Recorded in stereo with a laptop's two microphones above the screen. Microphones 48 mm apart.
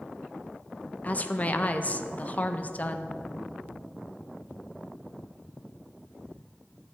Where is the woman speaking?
35° left (ahead or behind), 0.5 m.